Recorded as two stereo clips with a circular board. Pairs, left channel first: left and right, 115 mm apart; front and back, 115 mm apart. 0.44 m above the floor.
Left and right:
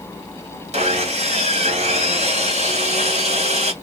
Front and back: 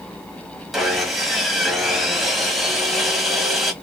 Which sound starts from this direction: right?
Sawing, at 0.7 s.